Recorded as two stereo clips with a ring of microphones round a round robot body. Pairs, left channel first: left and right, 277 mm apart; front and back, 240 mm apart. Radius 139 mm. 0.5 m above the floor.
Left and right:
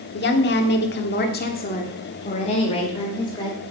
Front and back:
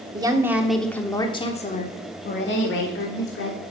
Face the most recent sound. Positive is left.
turn(degrees=15)